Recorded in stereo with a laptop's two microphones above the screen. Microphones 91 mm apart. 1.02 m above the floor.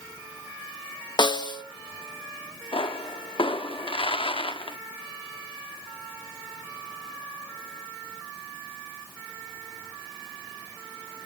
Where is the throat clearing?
I don't hear throat clearing.